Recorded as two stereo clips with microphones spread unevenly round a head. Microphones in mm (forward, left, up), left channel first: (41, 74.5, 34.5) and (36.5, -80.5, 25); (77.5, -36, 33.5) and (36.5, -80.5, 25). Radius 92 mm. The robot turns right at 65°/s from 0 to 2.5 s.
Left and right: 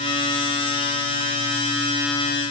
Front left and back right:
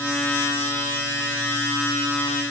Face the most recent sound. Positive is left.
No sound to turn to.